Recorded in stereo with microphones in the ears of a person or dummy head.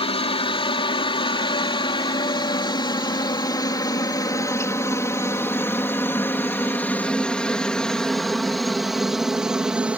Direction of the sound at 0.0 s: 30° left (ahead or behind).